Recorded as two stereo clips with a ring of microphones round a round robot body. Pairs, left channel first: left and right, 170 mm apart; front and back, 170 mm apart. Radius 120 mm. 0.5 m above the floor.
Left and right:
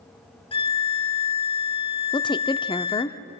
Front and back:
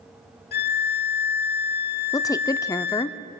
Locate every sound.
0.5 s a violin: 30° left, 1.0 m
2.1 s a woman speaking: 50° left, 0.7 m